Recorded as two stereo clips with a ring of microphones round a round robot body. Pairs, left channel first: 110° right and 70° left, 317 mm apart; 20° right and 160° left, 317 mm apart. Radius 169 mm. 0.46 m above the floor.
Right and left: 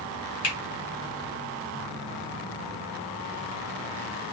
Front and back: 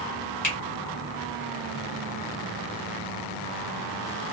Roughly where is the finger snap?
Right.